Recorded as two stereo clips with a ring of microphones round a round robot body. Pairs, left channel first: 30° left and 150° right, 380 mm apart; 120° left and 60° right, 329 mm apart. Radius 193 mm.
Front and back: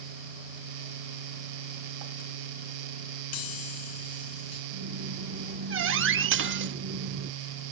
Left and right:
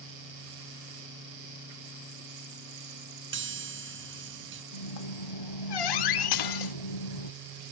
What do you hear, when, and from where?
3.3 s a chime: 5° right
4.7 s a squeak: 150° left
6.3 s dishes clattering: 150° left